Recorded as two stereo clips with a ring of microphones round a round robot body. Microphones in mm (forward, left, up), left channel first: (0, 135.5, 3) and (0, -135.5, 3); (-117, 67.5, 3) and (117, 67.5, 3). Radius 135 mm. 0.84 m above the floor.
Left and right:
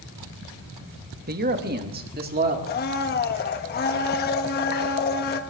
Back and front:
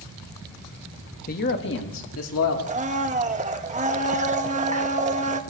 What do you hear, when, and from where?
1.3 s a man speaking: 135° right, 1.2 m; by 2.6 s 145° right, 2.5 m
2.7 s a blender: 50° left, 1.3 m